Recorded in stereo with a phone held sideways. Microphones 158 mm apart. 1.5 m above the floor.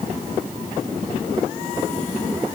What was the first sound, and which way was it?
Only background noise.